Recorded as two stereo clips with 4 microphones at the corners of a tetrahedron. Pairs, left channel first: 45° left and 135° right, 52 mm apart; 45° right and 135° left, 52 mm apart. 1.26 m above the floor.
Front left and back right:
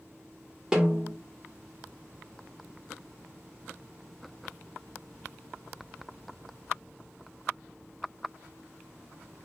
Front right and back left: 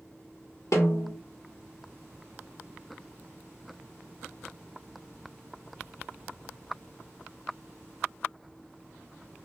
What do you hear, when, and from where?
0.7 s a snare drum: 55° right, 1.5 m